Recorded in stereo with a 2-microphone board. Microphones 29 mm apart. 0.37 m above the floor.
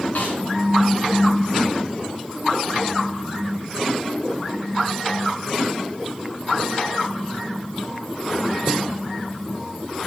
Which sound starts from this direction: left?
A snare drum, at 0.1 s.